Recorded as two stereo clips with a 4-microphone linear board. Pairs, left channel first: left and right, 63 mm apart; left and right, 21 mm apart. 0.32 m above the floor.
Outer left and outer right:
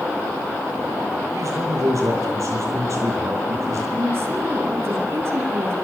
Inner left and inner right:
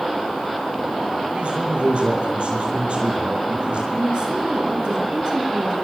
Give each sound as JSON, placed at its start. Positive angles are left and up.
{"t": 1.3, "sound": "a man speaking", "side_deg": -55, "distance_m": 10.0}
{"t": 3.9, "sound": "a woman speaking", "side_deg": -45, "distance_m": 7.0}